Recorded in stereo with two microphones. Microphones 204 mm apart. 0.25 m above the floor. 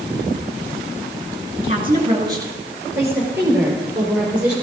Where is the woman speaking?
30° right (ahead or behind), 3 m; by 4.5 s 5° right (ahead or behind), 6.5 m.